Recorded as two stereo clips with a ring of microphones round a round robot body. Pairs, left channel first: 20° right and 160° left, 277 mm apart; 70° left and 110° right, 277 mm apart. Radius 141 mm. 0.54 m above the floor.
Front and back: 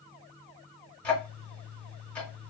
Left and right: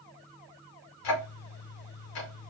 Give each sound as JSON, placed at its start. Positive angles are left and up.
{"t": 1.0, "sound": "ticking", "azimuth_deg": 65, "distance_m": 0.8}